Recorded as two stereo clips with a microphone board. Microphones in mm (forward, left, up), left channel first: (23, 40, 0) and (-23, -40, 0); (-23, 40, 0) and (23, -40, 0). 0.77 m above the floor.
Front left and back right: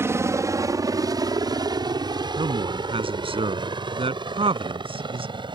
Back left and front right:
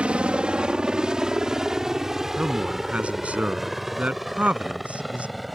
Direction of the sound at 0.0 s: 125° right.